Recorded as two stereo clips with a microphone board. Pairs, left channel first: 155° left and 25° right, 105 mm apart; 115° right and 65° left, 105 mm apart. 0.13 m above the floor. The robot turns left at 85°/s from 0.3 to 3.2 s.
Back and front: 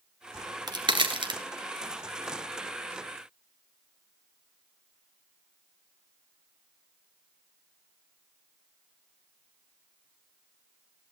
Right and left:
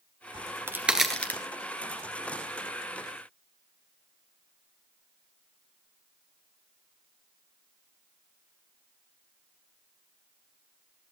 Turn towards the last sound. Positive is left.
turn(degrees=155)